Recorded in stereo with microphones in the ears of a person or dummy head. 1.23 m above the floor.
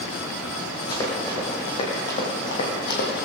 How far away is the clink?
No clink in this recording.